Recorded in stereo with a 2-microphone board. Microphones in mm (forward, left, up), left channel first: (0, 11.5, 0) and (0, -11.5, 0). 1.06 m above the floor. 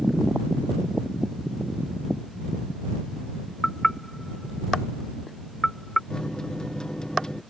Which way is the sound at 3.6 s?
30° left (ahead or behind).